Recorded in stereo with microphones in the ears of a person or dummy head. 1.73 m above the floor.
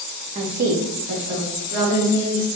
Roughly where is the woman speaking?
Right.